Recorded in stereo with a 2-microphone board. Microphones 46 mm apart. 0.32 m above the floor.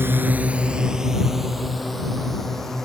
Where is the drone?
55° right (ahead or behind); by 2.9 s 10° left (ahead or behind).